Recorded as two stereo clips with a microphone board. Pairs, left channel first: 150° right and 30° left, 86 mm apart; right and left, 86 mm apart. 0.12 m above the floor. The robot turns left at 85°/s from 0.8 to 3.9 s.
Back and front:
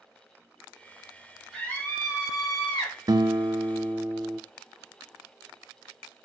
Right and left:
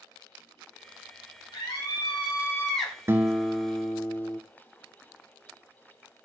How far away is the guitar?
About 0.7 m.